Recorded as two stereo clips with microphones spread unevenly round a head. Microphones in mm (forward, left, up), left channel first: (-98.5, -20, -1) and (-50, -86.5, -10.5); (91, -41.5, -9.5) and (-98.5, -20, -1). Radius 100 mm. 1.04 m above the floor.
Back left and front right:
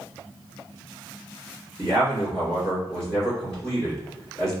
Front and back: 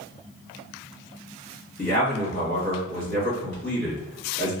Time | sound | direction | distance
1.8 | a man speaking | 40° left | 1.8 m